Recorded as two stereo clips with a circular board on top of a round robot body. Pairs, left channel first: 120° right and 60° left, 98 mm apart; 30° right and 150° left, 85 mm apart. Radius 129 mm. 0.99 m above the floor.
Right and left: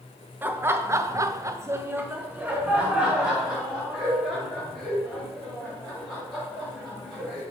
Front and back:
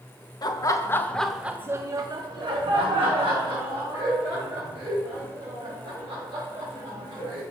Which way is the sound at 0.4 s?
5° right.